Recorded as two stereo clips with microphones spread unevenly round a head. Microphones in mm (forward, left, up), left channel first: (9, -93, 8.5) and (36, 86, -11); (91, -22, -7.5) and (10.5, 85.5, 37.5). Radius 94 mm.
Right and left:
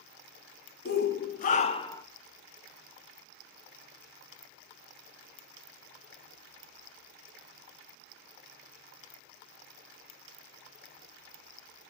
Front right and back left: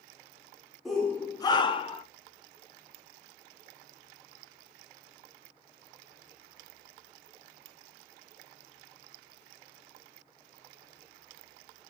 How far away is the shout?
About 0.6 m.